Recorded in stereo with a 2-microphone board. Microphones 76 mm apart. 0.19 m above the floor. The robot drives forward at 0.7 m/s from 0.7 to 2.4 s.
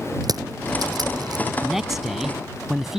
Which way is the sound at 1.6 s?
5° right (ahead or behind).